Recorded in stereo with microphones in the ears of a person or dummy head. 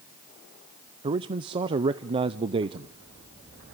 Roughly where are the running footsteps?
I don't hear running footsteps.